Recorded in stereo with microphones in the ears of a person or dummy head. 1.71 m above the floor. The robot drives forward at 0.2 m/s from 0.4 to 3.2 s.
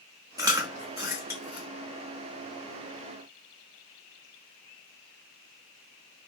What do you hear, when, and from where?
0.4 s chewing: 15° right (ahead or behind), 0.6 m; by 1.7 s 10° right (ahead or behind), 0.8 m